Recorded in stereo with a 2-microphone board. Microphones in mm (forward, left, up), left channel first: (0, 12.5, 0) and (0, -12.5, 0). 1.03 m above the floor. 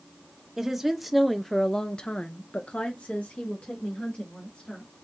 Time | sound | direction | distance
0.6 | a woman speaking | 15° right (ahead or behind) | 1.1 m